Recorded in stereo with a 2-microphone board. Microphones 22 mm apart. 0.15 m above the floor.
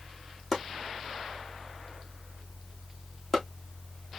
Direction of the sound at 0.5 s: 10° left (ahead or behind).